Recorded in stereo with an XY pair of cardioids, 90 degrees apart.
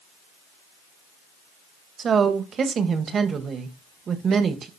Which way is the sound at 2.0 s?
55° right.